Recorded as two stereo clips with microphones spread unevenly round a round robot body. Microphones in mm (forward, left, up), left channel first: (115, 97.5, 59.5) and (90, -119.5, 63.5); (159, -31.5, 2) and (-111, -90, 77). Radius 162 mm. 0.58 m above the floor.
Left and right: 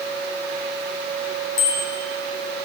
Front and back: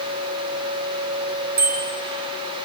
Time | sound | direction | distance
1.6 | a bicycle bell | 125° left | 4.5 m